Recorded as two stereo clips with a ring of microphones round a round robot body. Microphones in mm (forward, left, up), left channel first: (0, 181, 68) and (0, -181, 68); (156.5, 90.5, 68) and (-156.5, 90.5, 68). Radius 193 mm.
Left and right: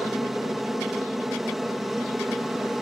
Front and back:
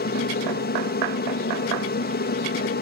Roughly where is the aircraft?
Ahead.